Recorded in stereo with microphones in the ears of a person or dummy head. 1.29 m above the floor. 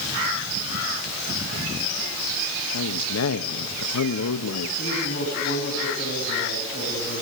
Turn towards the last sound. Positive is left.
turn(degrees=40)  # may be behind; listen again after turning